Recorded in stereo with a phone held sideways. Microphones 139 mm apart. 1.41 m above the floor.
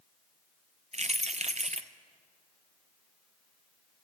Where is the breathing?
I don't hear breathing.